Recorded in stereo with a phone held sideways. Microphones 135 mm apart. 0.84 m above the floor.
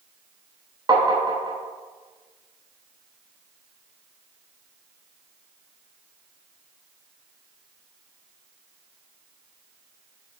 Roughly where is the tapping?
Right.